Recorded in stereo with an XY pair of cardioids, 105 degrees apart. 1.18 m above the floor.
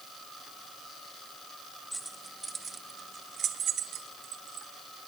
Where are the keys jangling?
10° right, 1.6 m; by 4.7 s 80° right, 2.5 m.